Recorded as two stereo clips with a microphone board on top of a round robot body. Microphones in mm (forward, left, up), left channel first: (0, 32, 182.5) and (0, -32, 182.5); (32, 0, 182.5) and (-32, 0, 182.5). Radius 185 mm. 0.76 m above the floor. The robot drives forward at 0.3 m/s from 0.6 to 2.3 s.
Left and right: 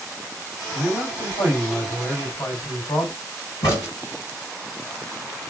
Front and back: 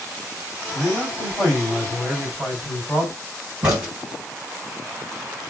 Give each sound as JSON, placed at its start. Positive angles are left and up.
{"t": 0.7, "sound": "a man speaking", "azimuth_deg": 85, "distance_m": 3.0}
{"t": 3.6, "sound": "a crack", "azimuth_deg": 105, "distance_m": 2.0}